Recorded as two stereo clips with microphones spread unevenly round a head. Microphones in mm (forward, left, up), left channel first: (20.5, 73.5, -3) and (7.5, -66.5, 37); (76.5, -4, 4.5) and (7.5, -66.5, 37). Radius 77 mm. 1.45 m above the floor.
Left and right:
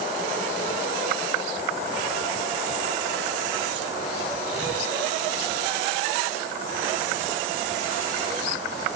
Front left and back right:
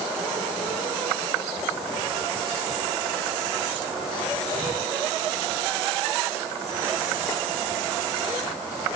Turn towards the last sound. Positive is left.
No sound to turn to.